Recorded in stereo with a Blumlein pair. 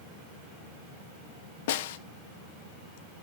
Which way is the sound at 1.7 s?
55° left.